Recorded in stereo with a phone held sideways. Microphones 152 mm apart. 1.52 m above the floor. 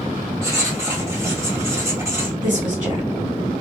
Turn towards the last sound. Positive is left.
turn(degrees=-45)  # may be behind; listen again after turning